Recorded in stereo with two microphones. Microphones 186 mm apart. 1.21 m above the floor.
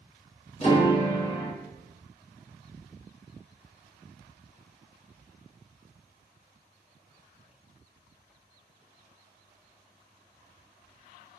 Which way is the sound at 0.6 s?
40° left (ahead or behind).